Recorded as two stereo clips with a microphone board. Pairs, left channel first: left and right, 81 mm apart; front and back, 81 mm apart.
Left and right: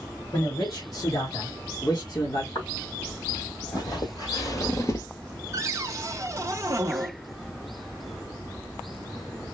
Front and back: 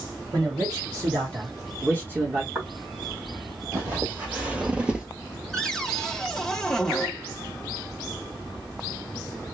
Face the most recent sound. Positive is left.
turn(degrees=-80)